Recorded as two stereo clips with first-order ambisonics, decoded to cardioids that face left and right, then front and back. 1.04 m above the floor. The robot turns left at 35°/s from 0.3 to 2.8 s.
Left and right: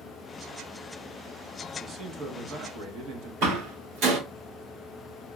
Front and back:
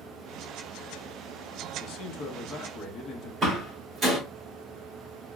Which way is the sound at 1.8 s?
25° right.